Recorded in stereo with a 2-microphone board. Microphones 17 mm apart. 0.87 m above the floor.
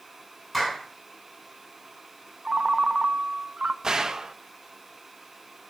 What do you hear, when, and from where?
0.5 s a clap: 5° left (ahead or behind), 7.5 m
2.5 s a ringtone: 40° right (ahead or behind), 0.8 m
3.8 s a gunshot: 30° right (ahead or behind), 1.0 m